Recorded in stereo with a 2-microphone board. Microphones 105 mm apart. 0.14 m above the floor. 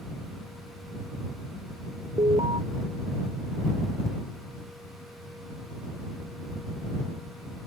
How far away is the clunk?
I don't hear a clunk.